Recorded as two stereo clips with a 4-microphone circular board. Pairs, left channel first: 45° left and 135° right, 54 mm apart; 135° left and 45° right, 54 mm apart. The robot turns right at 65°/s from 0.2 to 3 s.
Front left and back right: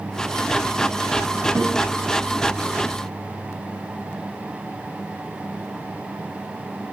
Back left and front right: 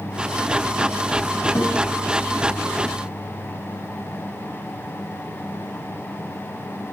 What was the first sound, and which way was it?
A guitar, 175° left.